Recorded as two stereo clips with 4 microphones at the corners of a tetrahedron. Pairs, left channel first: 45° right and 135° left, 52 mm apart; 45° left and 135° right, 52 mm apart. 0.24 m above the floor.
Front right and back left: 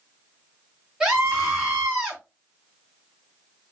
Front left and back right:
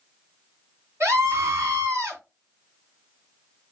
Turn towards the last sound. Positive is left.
turn(degrees=-150)